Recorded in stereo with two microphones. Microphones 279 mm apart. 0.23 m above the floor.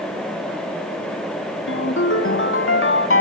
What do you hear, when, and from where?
1.7 s a ringtone: 45° left (ahead or behind), 1.1 m